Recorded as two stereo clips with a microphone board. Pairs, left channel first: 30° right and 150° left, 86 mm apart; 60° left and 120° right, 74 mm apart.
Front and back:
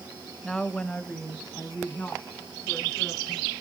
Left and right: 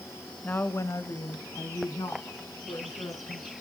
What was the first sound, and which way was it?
A woman speaking, 50° left.